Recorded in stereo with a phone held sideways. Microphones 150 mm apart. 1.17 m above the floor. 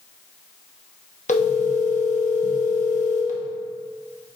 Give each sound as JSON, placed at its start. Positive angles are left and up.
{"t": 1.3, "sound": "a phone ringing", "side_deg": 50, "distance_m": 1.0}